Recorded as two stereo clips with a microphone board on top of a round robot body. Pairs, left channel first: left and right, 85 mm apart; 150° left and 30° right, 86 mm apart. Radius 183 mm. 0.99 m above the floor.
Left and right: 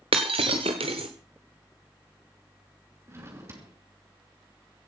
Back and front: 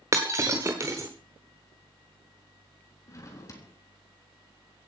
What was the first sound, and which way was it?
Breaking glass, 85° right.